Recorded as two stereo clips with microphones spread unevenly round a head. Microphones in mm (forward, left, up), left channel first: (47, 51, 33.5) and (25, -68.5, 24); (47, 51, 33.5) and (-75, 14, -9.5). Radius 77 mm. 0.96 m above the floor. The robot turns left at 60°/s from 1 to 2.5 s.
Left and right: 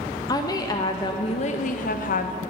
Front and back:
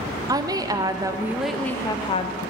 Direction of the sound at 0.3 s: 145° left.